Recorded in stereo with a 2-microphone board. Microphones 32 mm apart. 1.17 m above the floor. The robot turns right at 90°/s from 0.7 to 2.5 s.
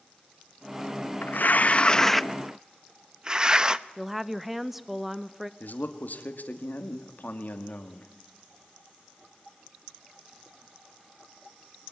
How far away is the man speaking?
About 2 m.